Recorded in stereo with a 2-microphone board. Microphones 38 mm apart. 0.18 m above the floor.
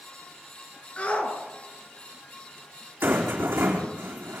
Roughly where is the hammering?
I don't hear hammering.